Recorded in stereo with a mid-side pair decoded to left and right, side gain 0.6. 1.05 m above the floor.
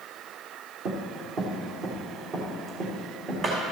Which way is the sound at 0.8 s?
50° right.